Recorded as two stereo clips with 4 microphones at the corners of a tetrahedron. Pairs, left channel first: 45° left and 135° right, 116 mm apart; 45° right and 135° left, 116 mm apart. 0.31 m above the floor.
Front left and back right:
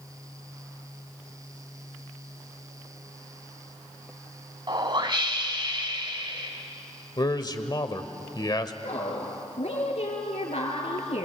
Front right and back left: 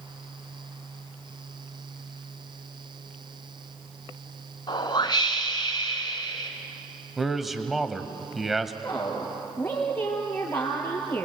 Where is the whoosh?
90° right, 2.0 m.